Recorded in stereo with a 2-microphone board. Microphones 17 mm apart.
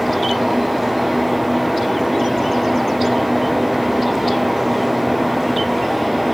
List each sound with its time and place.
Only background noise.